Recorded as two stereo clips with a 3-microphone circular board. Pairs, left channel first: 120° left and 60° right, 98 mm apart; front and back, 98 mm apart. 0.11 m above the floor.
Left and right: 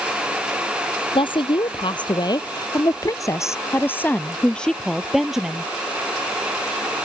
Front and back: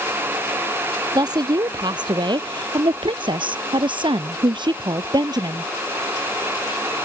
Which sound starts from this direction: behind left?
A woman speaking, at 1.1 s.